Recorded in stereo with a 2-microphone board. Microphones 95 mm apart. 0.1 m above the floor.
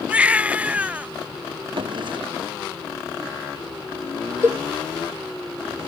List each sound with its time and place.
0.1 s a baby crying: 15° right (ahead or behind)
1.8 s a drawer: 60° right (ahead or behind)
4.4 s a cowbell: 25° right (ahead or behind)